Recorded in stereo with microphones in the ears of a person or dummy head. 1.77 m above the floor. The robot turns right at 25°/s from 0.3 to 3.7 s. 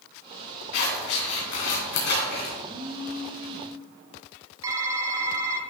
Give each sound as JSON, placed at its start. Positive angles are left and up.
{"t": 0.7, "sound": "scissors", "side_deg": 75, "distance_m": 2.5}
{"t": 2.6, "sound": "a phone buzzing", "side_deg": -20, "distance_m": 2.0}
{"t": 4.6, "sound": "typing on a keyboard", "side_deg": -20, "distance_m": 0.8}